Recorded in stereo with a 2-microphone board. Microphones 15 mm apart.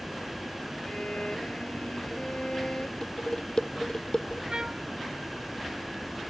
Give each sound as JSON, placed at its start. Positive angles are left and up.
{"t": 0.8, "sound": "a violin", "side_deg": 75}
{"t": 3.0, "sound": "dishes clattering", "side_deg": 55}
{"t": 4.5, "sound": "a trumpet", "side_deg": -60}